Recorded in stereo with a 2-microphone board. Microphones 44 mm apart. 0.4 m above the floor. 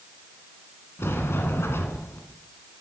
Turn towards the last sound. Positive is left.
turn(degrees=85)